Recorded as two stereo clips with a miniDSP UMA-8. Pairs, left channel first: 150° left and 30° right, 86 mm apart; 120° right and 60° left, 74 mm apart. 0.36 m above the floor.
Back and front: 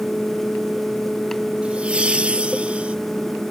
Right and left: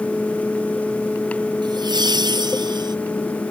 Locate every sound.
1.6 s laughter: 45° left